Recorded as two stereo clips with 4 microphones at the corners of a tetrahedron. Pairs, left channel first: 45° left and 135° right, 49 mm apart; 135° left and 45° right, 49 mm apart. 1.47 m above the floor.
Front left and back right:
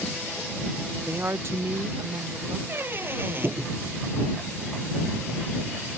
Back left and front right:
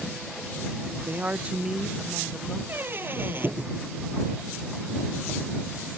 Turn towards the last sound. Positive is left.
turn(degrees=-90)